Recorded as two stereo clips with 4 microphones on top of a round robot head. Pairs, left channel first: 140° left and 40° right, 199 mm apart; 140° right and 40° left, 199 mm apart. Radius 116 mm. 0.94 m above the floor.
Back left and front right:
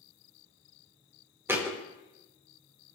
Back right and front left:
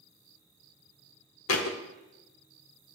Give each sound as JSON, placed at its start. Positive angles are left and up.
{"t": 1.5, "sound": "a thud", "azimuth_deg": -120, "distance_m": 0.9}